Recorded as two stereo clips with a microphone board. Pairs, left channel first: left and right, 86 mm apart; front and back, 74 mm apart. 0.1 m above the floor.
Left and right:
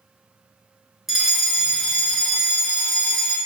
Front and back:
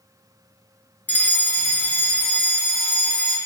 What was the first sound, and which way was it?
A fire alarm, 10° right.